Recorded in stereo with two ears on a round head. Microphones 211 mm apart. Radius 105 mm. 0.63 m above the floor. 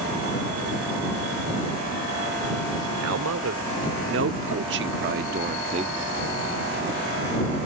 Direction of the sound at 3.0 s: 65° right (ahead or behind).